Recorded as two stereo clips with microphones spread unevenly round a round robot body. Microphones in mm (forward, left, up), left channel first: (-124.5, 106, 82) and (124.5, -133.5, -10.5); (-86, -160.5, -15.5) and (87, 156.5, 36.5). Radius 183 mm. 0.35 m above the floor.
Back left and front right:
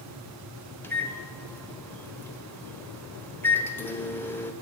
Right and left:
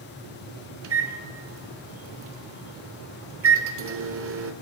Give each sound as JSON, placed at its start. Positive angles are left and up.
{"t": 0.8, "sound": "a microwave", "azimuth_deg": 35, "distance_m": 0.9}